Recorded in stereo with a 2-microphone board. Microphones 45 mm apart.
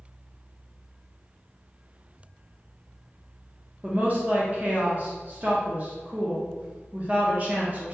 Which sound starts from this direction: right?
A woman speaking, at 3.8 s.